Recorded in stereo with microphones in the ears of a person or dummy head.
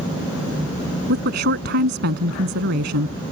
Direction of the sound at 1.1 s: 50° right (ahead or behind).